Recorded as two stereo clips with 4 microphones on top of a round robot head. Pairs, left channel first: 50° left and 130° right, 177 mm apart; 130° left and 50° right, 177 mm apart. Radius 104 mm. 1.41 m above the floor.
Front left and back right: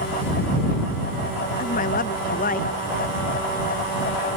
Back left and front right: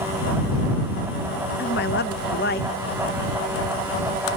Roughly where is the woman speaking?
Left.